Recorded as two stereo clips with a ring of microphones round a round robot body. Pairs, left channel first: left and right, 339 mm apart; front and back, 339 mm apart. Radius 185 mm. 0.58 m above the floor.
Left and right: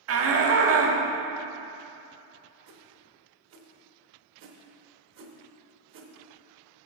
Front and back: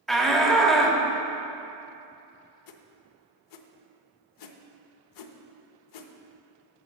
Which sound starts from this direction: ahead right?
A whoosh, at 2.7 s.